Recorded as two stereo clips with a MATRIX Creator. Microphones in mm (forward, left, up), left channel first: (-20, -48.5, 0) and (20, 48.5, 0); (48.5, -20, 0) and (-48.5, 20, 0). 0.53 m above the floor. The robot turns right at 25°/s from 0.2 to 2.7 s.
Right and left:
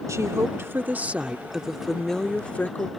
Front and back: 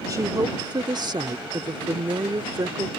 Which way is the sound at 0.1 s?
115° left.